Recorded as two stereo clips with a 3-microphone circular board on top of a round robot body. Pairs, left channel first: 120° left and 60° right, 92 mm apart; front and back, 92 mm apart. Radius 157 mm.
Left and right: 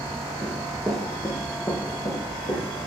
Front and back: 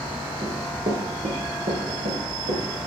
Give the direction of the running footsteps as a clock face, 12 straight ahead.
4 o'clock.